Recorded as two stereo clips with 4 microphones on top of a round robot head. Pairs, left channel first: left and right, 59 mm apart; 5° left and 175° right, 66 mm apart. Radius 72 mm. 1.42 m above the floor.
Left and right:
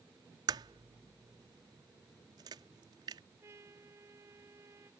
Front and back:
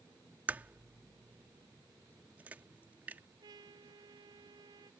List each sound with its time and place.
0.5 s a crack: 100° right
3.4 s a trumpet: 145° right